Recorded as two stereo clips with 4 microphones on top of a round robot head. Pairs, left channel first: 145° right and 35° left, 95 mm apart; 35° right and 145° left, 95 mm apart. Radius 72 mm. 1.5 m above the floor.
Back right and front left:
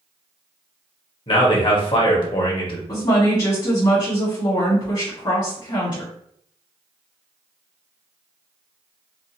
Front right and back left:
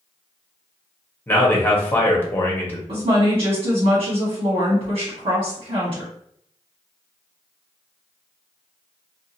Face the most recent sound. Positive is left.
turn(degrees=170)